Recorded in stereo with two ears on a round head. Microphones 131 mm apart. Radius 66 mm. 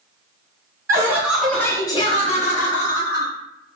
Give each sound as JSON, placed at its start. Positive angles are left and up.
{"t": 0.9, "sound": "laughter", "side_deg": -20, "distance_m": 0.8}